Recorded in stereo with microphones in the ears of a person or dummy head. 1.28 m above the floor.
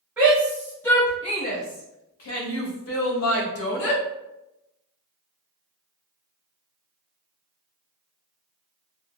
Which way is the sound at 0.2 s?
10° right (ahead or behind).